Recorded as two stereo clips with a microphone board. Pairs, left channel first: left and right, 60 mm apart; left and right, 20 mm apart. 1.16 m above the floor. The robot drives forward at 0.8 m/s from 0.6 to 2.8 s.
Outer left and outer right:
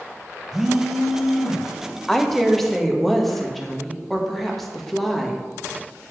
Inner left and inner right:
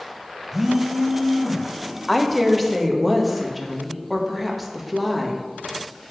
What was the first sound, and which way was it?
A phone buzzing, 5° right (ahead or behind).